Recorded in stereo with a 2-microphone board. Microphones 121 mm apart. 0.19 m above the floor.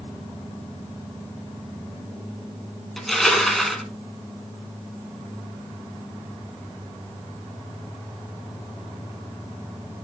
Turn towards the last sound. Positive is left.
turn(degrees=0)  # may be behind; listen again after turning